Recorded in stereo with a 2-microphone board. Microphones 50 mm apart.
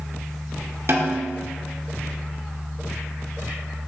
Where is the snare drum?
55° right (ahead or behind), 1.2 m.